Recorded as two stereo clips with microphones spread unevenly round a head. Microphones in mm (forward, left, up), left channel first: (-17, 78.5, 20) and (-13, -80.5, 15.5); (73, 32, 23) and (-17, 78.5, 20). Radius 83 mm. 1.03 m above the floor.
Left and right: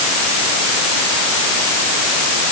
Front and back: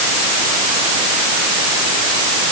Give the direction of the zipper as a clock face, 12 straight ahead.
No zipper in this recording.